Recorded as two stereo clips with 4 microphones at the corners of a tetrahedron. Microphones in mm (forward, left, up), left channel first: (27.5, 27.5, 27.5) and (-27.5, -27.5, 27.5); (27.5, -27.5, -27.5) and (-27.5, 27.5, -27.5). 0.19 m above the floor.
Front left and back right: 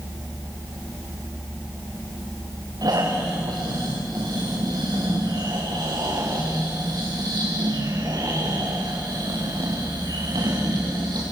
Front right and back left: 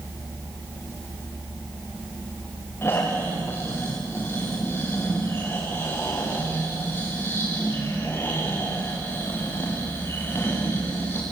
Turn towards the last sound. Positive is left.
turn(degrees=-105)